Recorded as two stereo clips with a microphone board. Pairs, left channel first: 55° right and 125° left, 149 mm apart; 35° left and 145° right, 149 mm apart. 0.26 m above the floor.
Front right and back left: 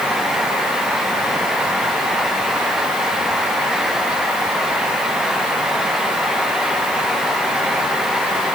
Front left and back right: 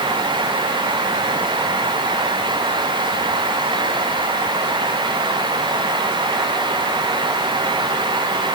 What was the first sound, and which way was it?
Only background noise.